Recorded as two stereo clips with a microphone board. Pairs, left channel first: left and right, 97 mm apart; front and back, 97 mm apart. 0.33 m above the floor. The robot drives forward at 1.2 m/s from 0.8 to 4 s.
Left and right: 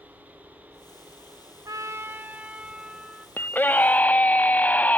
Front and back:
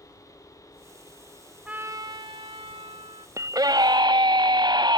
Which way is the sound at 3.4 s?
145° left.